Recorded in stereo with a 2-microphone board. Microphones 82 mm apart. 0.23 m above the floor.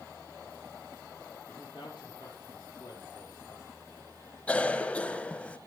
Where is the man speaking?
65° left (ahead or behind), 4.5 m; by 3.7 s 50° left (ahead or behind), 4 m.